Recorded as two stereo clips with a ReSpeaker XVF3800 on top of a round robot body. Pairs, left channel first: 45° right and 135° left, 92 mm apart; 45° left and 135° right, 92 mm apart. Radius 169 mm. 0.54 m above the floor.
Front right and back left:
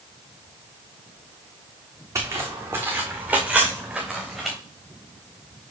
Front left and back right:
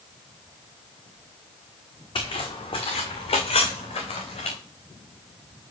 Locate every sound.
2.1 s footsteps: 75° left, 2 m; by 4.6 s 45° left, 2.5 m